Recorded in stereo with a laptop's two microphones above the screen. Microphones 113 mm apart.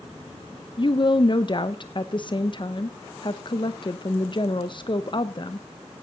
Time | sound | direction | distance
0.8 | a woman speaking | 45° left (ahead or behind) | 0.7 m